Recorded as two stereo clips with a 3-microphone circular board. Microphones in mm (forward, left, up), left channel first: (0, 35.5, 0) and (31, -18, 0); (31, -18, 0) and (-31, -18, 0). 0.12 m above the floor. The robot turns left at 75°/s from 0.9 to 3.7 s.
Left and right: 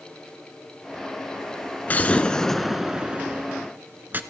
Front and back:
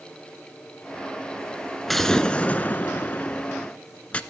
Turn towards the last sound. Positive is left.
turn(degrees=-50)